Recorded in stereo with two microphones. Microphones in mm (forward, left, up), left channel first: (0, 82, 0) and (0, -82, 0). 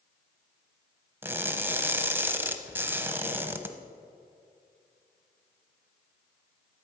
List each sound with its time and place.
1.2 s crushing: 10° right (ahead or behind), 0.9 m